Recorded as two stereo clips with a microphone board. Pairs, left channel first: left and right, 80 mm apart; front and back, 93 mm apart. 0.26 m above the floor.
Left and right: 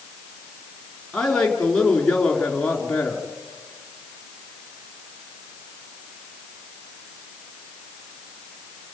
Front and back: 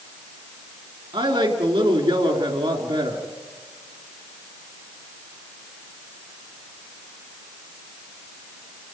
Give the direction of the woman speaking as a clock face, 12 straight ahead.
6 o'clock.